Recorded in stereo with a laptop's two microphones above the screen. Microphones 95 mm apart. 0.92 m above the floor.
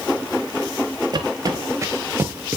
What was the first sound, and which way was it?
Footsteps, 45° right (ahead or behind).